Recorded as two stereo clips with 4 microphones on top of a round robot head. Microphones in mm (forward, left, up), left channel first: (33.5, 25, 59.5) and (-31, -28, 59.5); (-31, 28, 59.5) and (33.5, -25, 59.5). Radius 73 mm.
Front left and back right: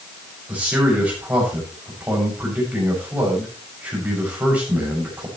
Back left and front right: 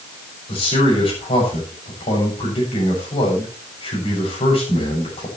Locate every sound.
0.5 s a man speaking: 145° left, 7 m